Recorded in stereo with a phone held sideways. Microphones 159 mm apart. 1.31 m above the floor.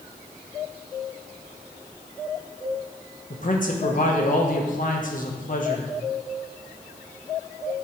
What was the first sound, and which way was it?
A man speaking, 55° left (ahead or behind).